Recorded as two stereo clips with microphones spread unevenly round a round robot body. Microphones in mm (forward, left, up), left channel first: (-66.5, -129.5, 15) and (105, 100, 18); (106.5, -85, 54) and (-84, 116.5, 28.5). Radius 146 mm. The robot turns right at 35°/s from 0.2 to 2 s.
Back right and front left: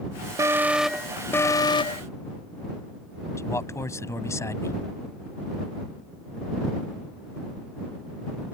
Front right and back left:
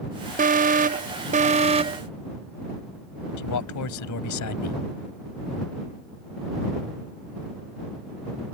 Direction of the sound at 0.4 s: 125° left.